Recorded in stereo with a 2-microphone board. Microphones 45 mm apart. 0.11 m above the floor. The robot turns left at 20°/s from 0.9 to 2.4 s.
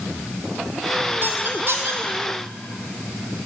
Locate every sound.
1.2 s a squeak: 50° right (ahead or behind), 1.6 m; by 2.0 s 65° right (ahead or behind), 1.6 m